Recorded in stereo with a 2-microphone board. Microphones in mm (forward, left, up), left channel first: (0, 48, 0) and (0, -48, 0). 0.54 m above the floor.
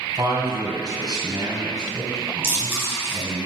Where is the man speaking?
55° right (ahead or behind), 2.5 m.